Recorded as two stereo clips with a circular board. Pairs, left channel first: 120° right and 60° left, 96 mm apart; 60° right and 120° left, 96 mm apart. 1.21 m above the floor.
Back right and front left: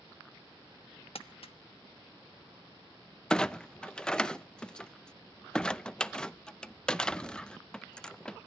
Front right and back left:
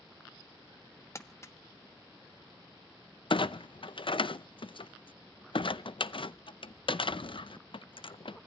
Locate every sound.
1.1 s crumpling: 120° right, 1.1 m
3.3 s a clunk: 35° right, 0.6 m